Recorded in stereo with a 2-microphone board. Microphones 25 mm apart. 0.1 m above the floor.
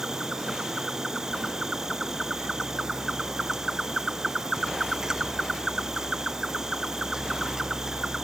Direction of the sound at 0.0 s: 20° right (ahead or behind).